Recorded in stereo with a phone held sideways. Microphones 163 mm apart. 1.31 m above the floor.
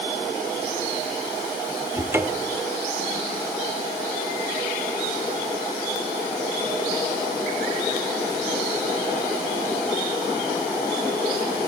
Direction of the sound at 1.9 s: 15° right (ahead or behind).